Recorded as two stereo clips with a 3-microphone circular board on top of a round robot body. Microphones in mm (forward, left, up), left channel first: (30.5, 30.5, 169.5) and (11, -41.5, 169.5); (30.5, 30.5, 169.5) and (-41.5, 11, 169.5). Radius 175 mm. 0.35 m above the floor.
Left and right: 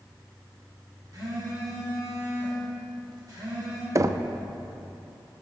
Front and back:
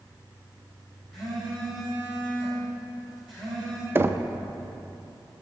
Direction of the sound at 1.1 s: 75° right.